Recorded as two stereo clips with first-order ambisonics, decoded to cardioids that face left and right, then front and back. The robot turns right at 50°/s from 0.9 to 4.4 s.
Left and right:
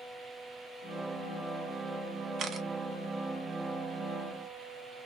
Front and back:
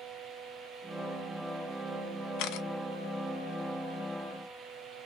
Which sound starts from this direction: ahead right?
A camera shutter, at 2.4 s.